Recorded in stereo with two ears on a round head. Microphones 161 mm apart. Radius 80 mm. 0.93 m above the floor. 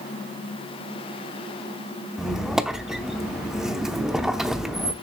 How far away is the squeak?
About 0.7 m.